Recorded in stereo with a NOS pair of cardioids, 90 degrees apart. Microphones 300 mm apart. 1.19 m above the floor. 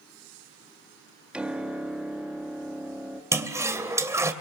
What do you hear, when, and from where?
1.3 s a piano: 5° right, 2.0 m
3.3 s a toilet flushing: 10° right, 2.5 m